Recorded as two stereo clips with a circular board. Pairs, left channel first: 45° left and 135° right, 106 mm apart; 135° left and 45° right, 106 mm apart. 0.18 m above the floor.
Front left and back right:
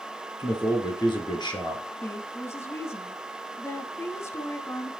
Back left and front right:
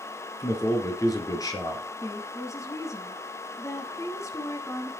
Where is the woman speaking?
95° left, 1.3 m.